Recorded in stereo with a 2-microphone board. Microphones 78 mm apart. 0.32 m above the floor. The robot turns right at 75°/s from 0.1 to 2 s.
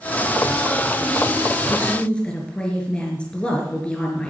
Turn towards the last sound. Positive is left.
turn(degrees=15)  # may be behind; listen again after turning